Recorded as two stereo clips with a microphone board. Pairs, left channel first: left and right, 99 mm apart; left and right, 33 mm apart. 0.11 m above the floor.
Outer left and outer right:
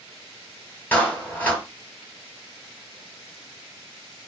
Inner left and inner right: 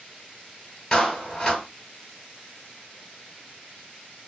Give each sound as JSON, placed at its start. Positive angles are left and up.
{"t": 0.9, "sound": "a clap", "side_deg": 20, "distance_m": 1.8}